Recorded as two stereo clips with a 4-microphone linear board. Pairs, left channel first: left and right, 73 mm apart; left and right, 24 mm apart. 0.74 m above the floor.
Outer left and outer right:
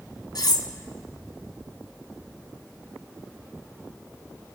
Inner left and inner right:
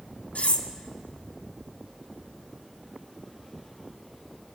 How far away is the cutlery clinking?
About 0.9 m.